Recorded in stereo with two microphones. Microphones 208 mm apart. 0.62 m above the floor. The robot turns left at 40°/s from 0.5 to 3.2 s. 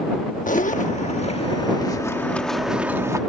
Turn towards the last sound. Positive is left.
turn(degrees=-25)